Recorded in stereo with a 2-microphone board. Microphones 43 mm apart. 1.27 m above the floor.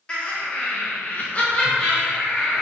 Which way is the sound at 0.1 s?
25° left (ahead or behind).